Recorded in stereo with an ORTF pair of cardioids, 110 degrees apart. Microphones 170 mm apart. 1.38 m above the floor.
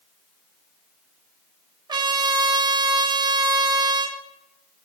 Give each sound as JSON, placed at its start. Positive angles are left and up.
{"t": 1.9, "sound": "a trumpet", "azimuth_deg": -25, "distance_m": 0.8}